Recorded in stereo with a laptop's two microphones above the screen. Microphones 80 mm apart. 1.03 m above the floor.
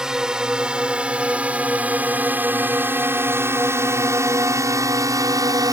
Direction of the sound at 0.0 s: 10° right (ahead or behind).